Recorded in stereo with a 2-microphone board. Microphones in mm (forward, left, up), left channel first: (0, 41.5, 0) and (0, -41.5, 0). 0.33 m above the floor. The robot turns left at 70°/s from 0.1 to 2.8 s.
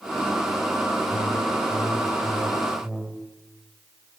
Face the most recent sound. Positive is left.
turn(degrees=-15)